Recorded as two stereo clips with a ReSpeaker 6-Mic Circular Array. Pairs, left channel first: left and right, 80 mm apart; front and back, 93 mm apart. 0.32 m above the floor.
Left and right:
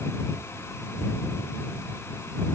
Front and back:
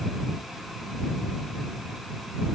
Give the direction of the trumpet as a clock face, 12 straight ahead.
No trumpet in this recording.